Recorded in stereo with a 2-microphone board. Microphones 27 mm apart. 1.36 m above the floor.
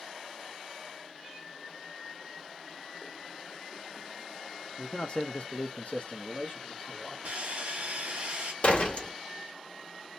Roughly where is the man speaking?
Left.